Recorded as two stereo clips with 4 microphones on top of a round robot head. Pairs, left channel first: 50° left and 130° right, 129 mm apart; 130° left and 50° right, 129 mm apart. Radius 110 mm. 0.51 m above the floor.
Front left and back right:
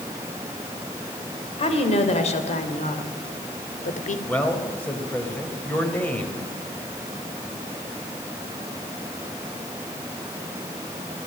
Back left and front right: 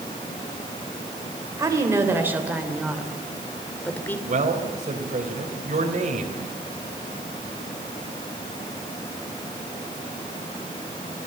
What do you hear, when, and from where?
1.6 s a woman speaking: 15° left, 3 m; by 4.2 s 55° left, 2.5 m
4.3 s a man speaking: 25° right, 3 m